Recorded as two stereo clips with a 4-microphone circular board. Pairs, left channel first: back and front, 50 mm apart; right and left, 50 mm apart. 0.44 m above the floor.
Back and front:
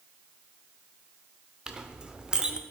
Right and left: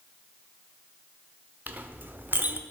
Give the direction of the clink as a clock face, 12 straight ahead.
10 o'clock.